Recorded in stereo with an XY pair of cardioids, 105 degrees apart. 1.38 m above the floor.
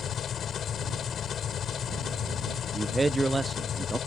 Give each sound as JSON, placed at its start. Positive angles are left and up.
{"t": 0.0, "sound": "an engine running", "azimuth_deg": 50}
{"t": 2.7, "sound": "a man speaking", "azimuth_deg": -20}